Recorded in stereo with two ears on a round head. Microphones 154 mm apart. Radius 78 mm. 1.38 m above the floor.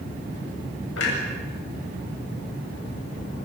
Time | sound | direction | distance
1.0 | a clunk | 75° left (ahead or behind) | 8 m